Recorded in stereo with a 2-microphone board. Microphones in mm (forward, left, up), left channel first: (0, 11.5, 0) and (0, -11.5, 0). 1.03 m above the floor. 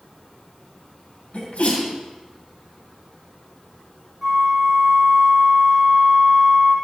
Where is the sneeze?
80° left, 2.5 m.